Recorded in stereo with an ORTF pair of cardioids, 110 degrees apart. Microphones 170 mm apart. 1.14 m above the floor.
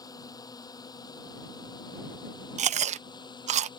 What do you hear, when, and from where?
0.0 s a drone: 25° left
2.6 s chewing: 45° right